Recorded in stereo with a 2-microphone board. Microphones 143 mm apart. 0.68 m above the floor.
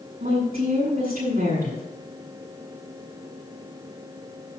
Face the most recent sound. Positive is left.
turn(degrees=-75)  # may be behind; listen again after turning